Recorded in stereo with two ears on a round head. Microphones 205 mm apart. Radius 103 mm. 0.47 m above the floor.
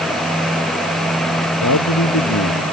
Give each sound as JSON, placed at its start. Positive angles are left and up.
{"t": 1.6, "sound": "a man speaking", "side_deg": 80}